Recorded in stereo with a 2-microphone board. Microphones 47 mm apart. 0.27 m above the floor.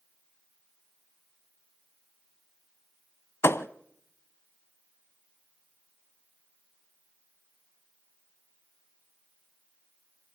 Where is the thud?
70° left (ahead or behind), 0.5 m.